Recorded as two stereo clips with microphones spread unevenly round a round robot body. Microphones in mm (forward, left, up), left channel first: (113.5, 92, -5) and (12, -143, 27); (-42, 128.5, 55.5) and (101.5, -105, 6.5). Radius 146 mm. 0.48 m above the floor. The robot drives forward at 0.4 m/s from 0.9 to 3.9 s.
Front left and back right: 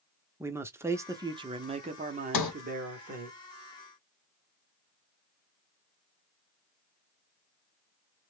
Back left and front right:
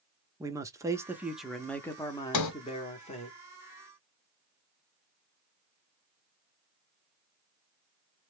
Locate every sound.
0.4 s a man speaking: 30° right, 0.7 m; by 3.3 s 170° right, 1.0 m
2.3 s a sliding door: 95° left, 0.8 m; by 2.5 s 100° left, 0.8 m